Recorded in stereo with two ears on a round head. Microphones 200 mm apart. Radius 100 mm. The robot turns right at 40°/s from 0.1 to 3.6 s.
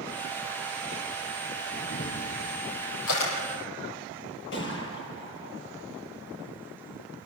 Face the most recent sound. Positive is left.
turn(degrees=60)  # may be behind; listen again after turning